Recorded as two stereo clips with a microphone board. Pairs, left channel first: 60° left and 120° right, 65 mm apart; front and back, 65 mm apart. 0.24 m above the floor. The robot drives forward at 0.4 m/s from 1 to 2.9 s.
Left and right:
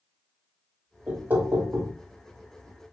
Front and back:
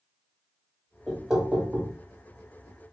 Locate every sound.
1.1 s knocking: 95° right, 0.8 m; by 1.9 s 135° right, 0.9 m